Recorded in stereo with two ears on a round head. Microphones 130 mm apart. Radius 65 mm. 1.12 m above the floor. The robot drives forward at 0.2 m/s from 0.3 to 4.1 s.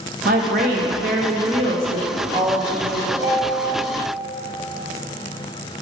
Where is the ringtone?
75° right (ahead or behind), 1.2 m.